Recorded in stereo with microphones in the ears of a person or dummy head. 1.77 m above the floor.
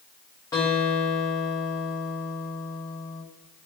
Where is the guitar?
15° left (ahead or behind), 1.2 m.